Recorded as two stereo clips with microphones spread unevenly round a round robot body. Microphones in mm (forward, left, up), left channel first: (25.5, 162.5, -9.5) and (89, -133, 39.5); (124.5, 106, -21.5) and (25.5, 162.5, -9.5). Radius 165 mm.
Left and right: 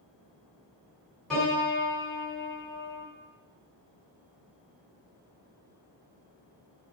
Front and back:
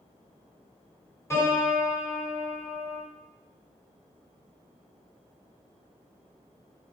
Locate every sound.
1.3 s a piano: 25° left, 2.0 m